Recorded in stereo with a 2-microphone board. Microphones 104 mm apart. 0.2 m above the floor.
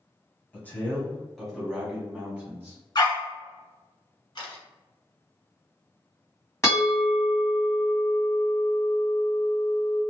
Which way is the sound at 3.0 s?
45° left (ahead or behind).